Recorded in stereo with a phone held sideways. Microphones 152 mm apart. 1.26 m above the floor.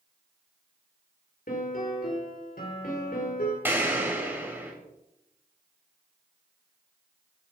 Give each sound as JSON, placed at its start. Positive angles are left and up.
{"t": 1.5, "sound": "a piano", "side_deg": 75, "distance_m": 4.5}
{"t": 3.6, "sound": "an explosion", "side_deg": -15, "distance_m": 4.5}